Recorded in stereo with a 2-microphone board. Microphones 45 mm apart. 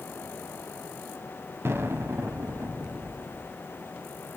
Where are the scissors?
No scissors in this recording.